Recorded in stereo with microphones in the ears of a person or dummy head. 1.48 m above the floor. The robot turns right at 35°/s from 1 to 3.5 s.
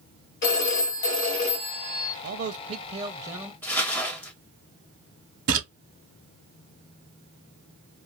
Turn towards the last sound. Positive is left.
turn(degrees=-65)  # may be behind; listen again after turning